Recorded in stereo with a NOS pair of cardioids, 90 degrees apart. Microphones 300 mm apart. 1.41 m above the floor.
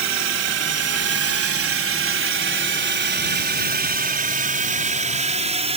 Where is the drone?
60° right; by 5.8 s 20° right.